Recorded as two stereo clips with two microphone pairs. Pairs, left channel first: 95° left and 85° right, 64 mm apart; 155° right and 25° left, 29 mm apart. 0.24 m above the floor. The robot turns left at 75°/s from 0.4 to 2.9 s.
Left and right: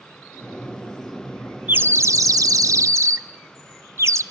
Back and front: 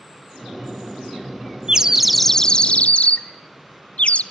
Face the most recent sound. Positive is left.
turn(degrees=-120)